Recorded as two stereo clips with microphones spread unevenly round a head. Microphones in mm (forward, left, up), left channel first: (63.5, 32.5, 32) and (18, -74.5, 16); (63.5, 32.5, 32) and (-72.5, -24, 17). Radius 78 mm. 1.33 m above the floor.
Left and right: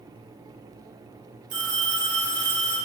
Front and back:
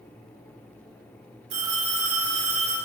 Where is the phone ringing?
135° right, 3 m.